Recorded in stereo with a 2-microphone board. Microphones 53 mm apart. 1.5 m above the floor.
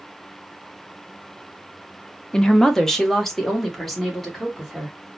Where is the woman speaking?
15° left (ahead or behind), 0.5 m; by 5.0 s centre (ahead or behind), 2 m.